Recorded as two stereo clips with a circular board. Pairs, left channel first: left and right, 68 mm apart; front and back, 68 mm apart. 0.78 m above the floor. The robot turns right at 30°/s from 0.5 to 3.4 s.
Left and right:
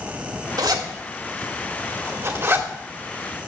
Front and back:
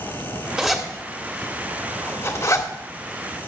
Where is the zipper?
90° right, 1.9 m; by 2.7 s 30° right, 1.9 m.